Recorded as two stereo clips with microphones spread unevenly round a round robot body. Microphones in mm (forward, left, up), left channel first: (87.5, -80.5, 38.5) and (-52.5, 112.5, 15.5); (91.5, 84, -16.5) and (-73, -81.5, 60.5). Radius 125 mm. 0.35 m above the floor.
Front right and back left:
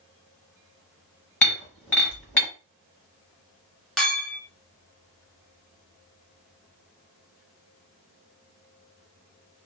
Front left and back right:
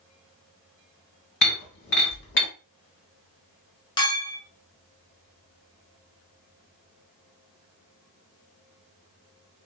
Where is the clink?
40° left, 0.8 m.